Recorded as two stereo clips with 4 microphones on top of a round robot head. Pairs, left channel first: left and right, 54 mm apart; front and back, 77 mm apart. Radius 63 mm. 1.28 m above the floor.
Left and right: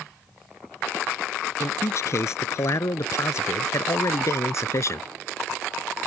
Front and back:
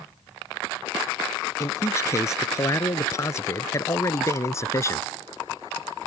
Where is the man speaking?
55° left.